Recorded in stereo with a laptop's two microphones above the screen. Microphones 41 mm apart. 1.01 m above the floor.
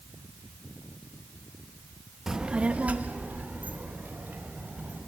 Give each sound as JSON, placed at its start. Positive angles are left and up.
{"t": 2.3, "sound": "a child speaking", "side_deg": -10, "distance_m": 0.6}